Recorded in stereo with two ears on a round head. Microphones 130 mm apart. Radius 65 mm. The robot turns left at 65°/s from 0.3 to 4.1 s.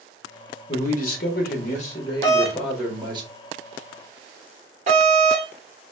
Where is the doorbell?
25° left (ahead or behind), 1.6 m; by 5.5 s 45° right (ahead or behind), 1.6 m.